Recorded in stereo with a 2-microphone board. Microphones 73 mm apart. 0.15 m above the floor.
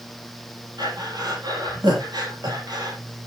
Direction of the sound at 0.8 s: 70° right (ahead or behind).